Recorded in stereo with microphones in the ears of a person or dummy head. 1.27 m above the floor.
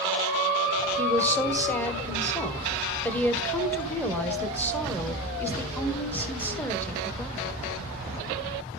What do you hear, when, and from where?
1.0 s a woman speaking: 10° left (ahead or behind), 0.8 m